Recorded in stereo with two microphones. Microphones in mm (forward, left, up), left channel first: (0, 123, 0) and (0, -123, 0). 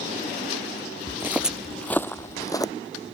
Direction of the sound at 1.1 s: 15° right (ahead or behind).